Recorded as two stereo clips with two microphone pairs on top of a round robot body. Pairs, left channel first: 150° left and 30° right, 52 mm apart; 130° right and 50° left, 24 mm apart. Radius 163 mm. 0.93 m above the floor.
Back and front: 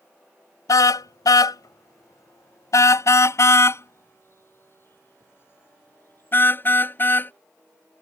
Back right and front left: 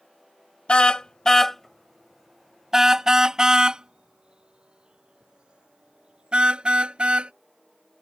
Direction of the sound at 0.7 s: 175° right.